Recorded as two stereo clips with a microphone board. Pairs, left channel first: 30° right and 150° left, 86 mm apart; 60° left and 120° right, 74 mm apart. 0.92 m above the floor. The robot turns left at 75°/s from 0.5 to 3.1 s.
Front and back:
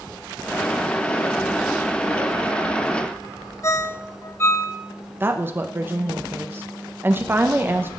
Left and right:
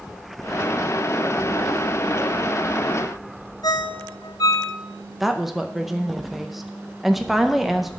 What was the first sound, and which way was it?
A ringtone, 30° left.